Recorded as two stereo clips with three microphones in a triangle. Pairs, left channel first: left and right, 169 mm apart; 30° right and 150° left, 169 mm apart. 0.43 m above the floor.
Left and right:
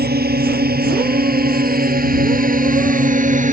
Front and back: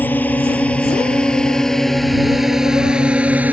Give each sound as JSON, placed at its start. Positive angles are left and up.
{"t": 0.0, "sound": "a drone", "azimuth_deg": -110}